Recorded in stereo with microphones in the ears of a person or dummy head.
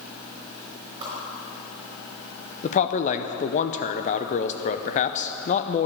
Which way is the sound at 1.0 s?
25° right (ahead or behind).